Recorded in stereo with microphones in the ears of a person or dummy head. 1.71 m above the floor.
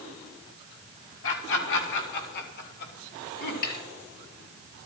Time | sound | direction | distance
1.2 | laughter | 75° left (ahead or behind) | 4 m
3.6 | a snare drum | 60° left (ahead or behind) | 5.5 m